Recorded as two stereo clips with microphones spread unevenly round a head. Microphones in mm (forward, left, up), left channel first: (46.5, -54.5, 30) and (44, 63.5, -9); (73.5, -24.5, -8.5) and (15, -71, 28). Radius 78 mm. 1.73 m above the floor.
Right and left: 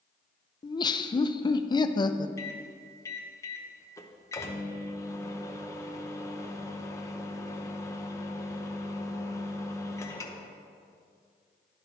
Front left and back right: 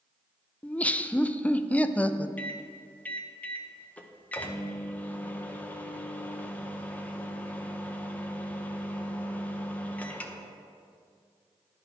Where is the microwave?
50° right, 0.7 m.